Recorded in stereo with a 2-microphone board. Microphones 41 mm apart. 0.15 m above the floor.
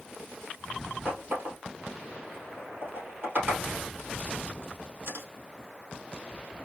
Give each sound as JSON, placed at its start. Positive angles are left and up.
{"t": 1.1, "sound": "a running tap", "side_deg": -55, "distance_m": 2.5}